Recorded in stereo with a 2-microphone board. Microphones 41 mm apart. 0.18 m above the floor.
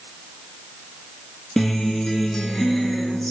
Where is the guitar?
10° left (ahead or behind), 0.9 m.